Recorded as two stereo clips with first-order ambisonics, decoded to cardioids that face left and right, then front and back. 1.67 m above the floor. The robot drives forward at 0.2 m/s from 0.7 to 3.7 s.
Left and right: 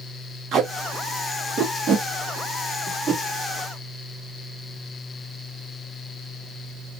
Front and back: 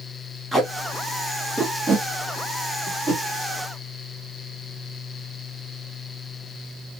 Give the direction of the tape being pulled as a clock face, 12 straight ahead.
3 o'clock.